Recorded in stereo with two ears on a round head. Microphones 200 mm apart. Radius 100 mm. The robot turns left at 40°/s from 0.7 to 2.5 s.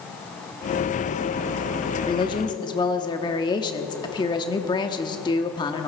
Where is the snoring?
I don't hear snoring.